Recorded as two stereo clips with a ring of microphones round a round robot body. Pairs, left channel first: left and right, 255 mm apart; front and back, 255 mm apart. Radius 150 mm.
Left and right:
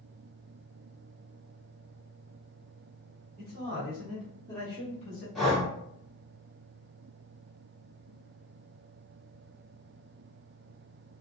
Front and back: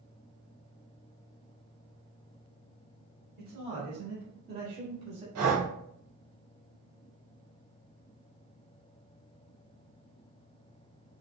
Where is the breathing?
Straight behind, 1.4 m.